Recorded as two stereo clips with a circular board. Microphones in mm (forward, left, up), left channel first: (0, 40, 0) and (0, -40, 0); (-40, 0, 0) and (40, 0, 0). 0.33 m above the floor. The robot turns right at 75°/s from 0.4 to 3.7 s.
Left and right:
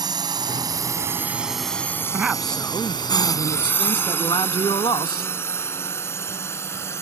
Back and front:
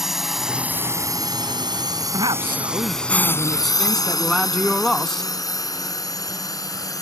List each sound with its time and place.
0.0 s a drone: 85° right; by 7.0 s 145° left
2.1 s a man speaking: 20° right; by 5.3 s 100° left